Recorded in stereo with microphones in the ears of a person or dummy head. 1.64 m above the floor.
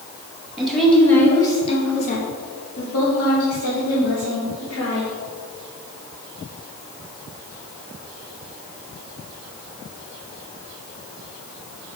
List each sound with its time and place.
0.6 s a woman speaking: centre (ahead or behind), 2.5 m; by 5.1 s 75° left (ahead or behind), 4.5 m